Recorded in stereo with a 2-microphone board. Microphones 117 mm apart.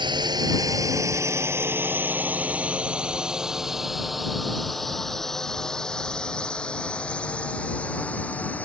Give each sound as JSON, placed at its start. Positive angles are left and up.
{"t": 0.0, "sound": "a drone", "side_deg": -35}